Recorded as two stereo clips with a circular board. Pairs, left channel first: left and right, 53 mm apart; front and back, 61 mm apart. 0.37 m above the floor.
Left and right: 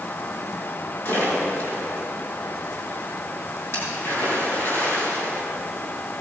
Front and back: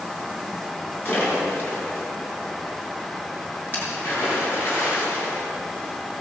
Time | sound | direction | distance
1.1 | a splash | 55° left | 6.5 m